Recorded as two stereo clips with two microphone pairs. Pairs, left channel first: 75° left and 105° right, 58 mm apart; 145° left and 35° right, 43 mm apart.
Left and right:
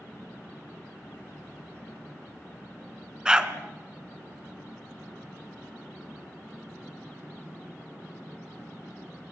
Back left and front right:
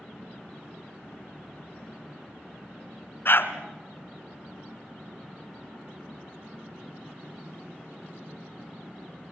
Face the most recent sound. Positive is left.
turn(degrees=175)